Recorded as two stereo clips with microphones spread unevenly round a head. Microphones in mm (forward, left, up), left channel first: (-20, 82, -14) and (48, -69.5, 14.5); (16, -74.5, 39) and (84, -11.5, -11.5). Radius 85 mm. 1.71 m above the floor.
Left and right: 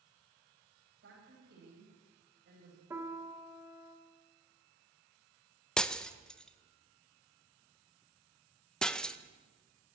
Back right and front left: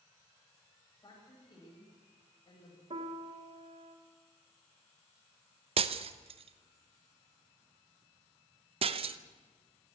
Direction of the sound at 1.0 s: 95° right.